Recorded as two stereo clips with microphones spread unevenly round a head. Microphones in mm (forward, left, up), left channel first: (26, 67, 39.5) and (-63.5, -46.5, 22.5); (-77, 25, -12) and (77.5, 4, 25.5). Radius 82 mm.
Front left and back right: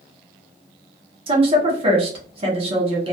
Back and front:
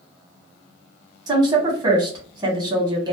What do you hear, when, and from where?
1.3 s a woman speaking: 80° right, 1.0 m